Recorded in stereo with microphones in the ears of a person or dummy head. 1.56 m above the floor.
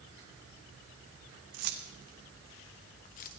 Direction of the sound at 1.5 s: 50° right (ahead or behind).